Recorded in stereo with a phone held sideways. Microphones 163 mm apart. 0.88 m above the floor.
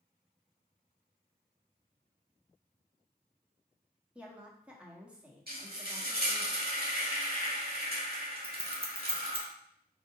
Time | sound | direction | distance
4.2 | a woman speaking | 10° right (ahead or behind) | 1.1 m
5.5 | frying | 65° right (ahead or behind) | 1.3 m
8.4 | scissors | 35° right (ahead or behind) | 0.9 m